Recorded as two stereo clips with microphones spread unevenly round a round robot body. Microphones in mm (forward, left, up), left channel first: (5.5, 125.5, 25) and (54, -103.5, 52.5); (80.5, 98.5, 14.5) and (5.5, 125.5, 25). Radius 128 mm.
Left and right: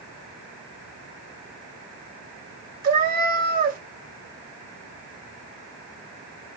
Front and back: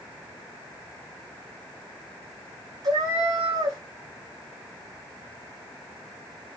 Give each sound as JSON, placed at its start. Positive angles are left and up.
{"t": 2.8, "sound": "a cat meowing", "azimuth_deg": -135, "distance_m": 1.1}